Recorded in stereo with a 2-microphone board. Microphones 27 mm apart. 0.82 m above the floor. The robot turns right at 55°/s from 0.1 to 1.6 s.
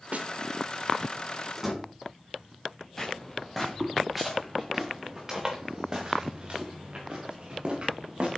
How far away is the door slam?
About 6 m.